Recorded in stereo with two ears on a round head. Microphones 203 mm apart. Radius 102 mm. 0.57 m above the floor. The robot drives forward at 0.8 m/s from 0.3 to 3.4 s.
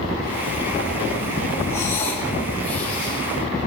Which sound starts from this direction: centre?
Breathing, at 1.7 s.